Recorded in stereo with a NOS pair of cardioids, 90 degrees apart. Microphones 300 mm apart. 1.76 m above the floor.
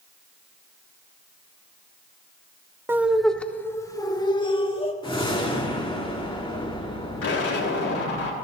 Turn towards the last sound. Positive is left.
turn(degrees=50)